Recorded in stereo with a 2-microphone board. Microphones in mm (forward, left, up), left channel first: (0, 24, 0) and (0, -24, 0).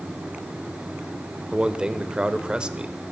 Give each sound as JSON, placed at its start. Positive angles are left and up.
{"t": 1.5, "sound": "a man speaking", "side_deg": -15, "distance_m": 1.1}